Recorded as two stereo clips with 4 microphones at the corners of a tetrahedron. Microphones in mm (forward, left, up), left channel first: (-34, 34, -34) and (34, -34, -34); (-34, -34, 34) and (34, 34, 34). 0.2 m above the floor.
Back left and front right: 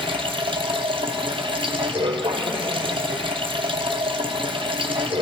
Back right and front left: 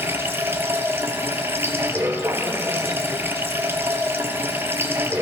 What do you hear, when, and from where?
0.0 s running water: 20° right, 0.9 m